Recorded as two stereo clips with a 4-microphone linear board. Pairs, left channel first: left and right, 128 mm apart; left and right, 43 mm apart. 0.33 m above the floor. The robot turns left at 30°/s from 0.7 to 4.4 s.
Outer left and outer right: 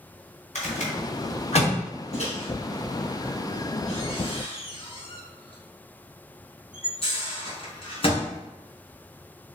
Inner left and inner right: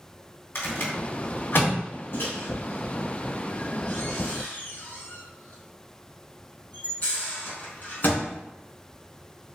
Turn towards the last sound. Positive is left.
turn(degrees=45)  # may be behind; listen again after turning